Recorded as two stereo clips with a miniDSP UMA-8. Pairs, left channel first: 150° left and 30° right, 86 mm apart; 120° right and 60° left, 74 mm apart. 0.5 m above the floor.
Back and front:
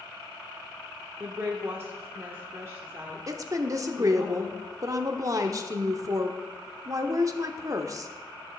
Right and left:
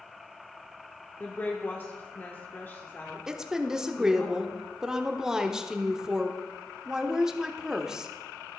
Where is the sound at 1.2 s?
75° right, 1.1 m.